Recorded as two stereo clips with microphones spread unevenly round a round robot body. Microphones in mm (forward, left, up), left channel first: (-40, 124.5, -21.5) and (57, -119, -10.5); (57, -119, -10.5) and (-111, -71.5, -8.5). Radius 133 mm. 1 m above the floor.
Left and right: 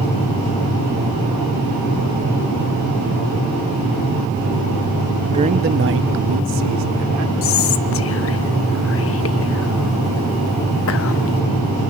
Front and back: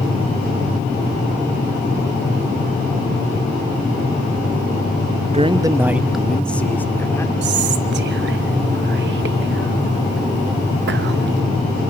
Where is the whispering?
145° left, 1.1 m.